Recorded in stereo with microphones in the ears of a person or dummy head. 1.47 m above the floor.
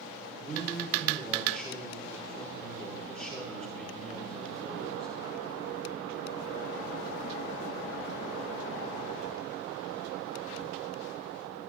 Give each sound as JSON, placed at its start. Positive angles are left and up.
{"t": 0.3, "sound": "a man speaking", "side_deg": 5, "distance_m": 4.0}